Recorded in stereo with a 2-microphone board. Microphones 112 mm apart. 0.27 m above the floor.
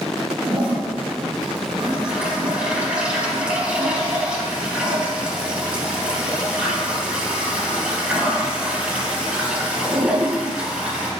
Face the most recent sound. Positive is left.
turn(degrees=-10)  # may be behind; listen again after turning